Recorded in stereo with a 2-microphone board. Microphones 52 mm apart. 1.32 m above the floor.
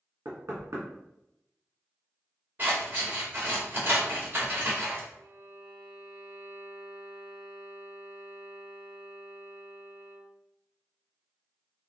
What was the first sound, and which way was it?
Knocking, 65° right (ahead or behind).